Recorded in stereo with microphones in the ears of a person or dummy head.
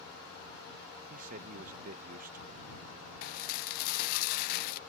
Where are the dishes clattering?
55° left (ahead or behind).